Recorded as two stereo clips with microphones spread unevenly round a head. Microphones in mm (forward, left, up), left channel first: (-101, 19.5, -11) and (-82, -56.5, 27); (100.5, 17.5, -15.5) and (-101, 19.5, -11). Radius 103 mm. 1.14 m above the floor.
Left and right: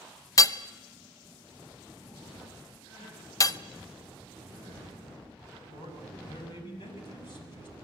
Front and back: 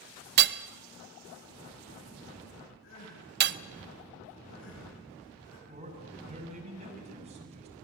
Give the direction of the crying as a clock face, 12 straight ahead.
11 o'clock.